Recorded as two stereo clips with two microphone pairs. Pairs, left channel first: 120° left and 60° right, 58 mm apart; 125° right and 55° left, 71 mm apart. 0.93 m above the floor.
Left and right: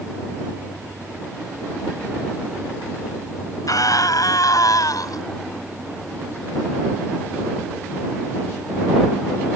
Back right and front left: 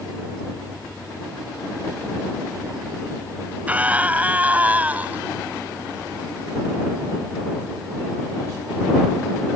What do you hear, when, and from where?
3.7 s a scream: 125° left